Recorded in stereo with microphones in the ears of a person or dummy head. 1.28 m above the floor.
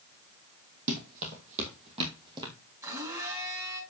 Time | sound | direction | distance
0.9 | running footsteps | 55° right (ahead or behind) | 2.5 m
2.8 | a blender | 15° right (ahead or behind) | 6 m